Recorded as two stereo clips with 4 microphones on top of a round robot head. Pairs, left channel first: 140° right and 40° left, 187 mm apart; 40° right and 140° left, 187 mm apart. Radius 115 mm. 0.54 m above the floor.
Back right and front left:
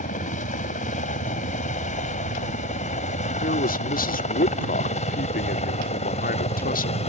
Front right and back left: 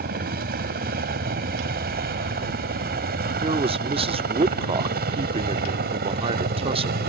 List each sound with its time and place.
0.0 s a helicopter: 175° left; by 7.1 s 170° left
3.4 s a man speaking: 170° right